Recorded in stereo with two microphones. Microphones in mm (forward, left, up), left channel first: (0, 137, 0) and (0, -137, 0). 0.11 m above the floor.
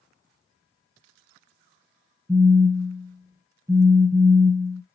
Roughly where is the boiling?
I don't hear boiling.